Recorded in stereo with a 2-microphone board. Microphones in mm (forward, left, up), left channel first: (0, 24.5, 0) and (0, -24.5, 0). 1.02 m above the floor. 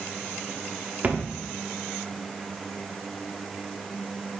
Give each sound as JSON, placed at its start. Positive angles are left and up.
{"t": 1.0, "sound": "a thud", "side_deg": -30, "distance_m": 1.0}